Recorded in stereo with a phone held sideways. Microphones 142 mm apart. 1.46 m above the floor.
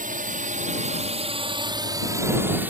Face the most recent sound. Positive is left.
turn(degrees=-10)  # may be behind; listen again after turning